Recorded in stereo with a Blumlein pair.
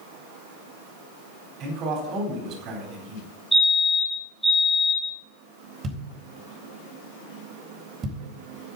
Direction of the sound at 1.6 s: 35° right.